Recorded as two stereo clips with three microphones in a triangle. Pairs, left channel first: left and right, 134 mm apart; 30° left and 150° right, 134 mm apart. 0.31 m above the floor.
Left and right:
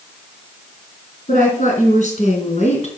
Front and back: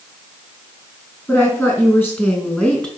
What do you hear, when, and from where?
1.3 s a woman speaking: 100° left, 4 m; by 2.9 s 110° left, 2.5 m